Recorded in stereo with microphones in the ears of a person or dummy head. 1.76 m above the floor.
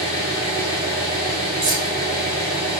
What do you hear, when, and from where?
0.0 s an engine running: 25° right (ahead or behind), 1.7 m
1.6 s keys jangling: 45° right (ahead or behind), 1.6 m